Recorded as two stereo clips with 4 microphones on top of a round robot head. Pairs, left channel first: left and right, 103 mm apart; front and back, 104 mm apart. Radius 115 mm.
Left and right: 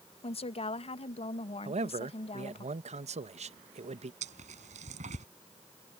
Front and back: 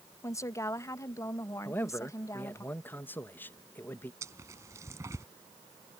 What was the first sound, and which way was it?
A woman speaking, 65° left.